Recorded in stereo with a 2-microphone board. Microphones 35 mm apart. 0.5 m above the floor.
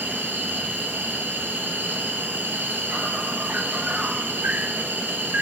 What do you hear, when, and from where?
0.0 s an insect: 65° right (ahead or behind), 1.6 m